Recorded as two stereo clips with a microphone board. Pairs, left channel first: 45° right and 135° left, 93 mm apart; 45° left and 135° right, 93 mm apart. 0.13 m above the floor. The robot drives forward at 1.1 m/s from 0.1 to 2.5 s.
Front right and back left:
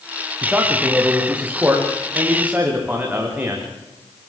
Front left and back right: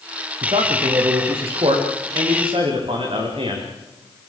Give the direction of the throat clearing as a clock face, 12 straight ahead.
I don't hear throat clearing.